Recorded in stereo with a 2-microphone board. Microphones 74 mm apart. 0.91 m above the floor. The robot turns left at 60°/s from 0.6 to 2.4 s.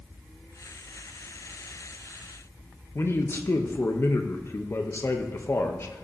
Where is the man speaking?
35° left (ahead or behind), 0.8 m.